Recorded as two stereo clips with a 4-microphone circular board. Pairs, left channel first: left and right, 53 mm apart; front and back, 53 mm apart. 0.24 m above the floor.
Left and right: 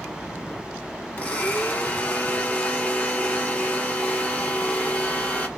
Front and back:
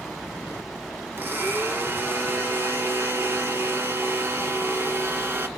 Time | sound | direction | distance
1.2 | a blender | 150° left | 0.6 m